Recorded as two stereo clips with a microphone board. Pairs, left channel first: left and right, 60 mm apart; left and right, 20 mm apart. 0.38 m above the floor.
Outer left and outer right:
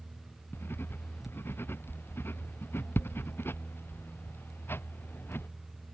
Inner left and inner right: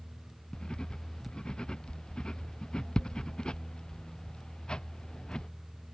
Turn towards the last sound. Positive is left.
turn(degrees=40)  # may be behind; listen again after turning